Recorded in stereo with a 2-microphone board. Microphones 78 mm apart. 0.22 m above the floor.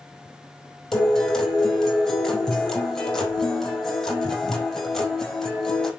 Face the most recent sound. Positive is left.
turn(degrees=10)  # may be behind; listen again after turning